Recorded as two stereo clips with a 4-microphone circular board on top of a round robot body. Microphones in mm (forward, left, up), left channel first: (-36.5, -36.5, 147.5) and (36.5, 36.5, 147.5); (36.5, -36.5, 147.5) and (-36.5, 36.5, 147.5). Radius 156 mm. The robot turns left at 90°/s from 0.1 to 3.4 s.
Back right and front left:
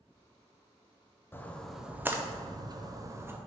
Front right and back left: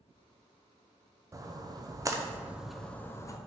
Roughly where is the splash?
Behind.